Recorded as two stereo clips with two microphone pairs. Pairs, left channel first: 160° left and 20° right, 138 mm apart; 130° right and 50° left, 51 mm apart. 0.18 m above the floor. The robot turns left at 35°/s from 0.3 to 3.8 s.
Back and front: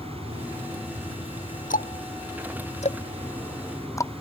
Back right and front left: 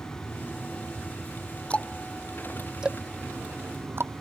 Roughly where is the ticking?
Behind.